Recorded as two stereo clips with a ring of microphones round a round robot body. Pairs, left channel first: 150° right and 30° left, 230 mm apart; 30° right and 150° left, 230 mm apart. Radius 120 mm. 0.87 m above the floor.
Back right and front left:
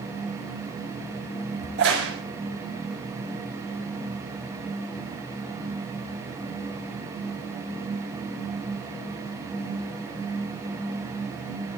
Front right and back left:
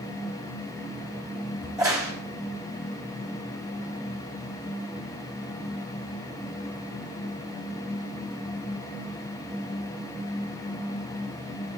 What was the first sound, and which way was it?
A crack, 75° left.